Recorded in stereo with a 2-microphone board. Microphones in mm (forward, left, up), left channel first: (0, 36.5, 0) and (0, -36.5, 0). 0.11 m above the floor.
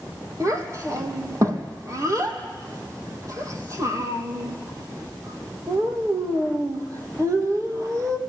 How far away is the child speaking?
About 3 m.